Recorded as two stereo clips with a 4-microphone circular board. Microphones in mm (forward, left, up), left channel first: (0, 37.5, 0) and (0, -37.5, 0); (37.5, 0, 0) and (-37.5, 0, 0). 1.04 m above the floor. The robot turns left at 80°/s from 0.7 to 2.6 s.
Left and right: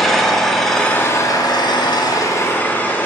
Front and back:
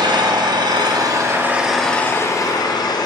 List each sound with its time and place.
0.0 s an engine running: 175° left, 0.7 m; by 3.1 s 25° left, 0.7 m